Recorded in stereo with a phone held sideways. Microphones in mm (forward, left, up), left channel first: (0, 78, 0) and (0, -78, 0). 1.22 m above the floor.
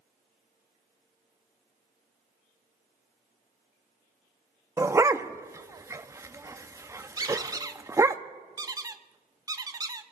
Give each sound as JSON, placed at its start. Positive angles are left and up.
{"t": 4.8, "sound": "a dog barking", "side_deg": -20, "distance_m": 0.6}
{"t": 7.2, "sound": "a squeak", "side_deg": -25, "distance_m": 0.8}